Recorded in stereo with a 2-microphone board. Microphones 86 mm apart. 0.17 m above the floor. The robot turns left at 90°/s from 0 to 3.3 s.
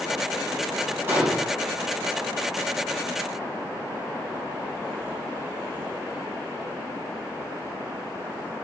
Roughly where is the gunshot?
Behind right.